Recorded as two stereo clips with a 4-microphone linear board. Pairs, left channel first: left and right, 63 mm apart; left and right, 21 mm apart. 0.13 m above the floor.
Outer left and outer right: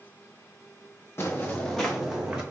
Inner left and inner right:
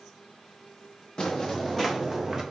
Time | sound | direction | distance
1.2 | footsteps | 40° left (ahead or behind) | 1.2 m